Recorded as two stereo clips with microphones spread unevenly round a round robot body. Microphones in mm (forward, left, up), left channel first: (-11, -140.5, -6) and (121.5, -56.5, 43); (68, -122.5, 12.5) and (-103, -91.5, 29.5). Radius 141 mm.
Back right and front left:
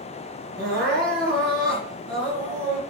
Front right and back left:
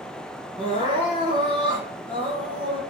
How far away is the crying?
About 3.5 m.